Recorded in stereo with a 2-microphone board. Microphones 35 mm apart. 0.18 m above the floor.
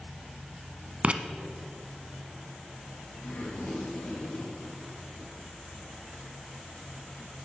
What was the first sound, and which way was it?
Writing, 35° right (ahead or behind).